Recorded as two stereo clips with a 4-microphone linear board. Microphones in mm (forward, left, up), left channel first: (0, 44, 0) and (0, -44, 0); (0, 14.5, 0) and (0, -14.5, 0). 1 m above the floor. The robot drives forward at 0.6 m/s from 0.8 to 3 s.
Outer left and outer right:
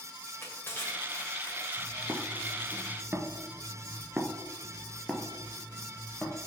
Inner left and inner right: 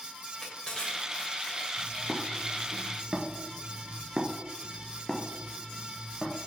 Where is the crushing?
25° left (ahead or behind), 2 m; by 2.5 s 45° left (ahead or behind), 1.3 m.